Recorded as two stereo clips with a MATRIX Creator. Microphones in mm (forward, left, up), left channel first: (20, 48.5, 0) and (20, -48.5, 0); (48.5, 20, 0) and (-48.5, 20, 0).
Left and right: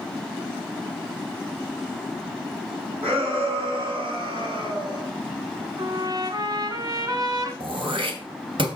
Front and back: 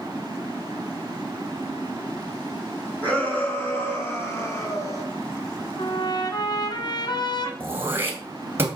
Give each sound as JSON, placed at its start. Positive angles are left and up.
{"t": 3.0, "sound": "a shout", "azimuth_deg": -75, "distance_m": 6.0}
{"t": 5.8, "sound": "a trumpet", "azimuth_deg": -40, "distance_m": 1.9}
{"t": 7.6, "sound": "throat clearing", "azimuth_deg": -115, "distance_m": 2.5}